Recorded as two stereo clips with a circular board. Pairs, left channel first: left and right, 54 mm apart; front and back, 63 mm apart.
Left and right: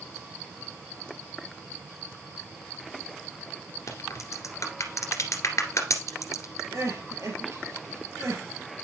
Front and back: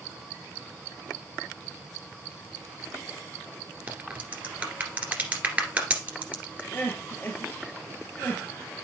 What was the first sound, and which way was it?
A crack, 110° left.